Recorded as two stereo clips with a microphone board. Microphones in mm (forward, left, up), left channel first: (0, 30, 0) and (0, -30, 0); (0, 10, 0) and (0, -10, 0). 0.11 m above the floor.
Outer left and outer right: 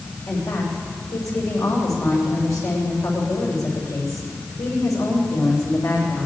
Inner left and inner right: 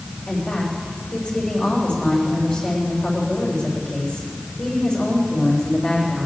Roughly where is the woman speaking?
Left.